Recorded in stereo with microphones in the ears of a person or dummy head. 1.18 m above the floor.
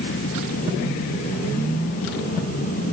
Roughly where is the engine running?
Left.